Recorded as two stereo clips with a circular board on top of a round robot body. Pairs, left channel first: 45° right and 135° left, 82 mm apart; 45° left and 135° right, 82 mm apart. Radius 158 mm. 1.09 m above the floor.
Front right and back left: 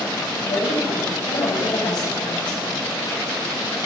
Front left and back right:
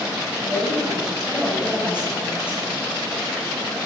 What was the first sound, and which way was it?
A woman speaking, 60° right.